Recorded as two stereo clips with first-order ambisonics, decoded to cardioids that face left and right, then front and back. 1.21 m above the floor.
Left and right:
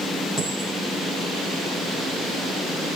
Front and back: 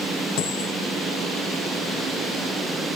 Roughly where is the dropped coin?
Ahead.